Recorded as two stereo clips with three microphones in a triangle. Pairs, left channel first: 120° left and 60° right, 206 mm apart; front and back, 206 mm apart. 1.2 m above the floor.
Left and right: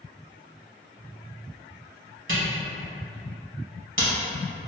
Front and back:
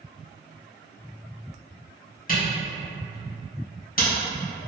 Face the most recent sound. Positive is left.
turn(degrees=-50)